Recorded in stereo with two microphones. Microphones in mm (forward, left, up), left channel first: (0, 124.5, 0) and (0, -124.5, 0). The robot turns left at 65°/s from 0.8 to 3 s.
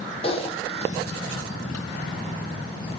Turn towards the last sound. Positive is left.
turn(degrees=15)  # may be behind; listen again after turning